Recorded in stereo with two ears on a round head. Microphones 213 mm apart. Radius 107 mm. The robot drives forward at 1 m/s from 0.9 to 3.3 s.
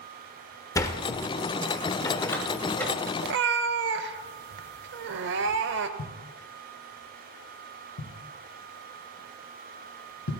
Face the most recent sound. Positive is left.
turn(degrees=85)